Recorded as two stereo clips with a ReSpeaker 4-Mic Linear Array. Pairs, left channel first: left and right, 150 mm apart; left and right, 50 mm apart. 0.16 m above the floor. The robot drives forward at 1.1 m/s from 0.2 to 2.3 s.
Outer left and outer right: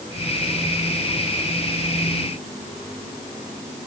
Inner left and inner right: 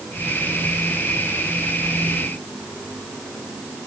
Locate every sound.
Only background noise.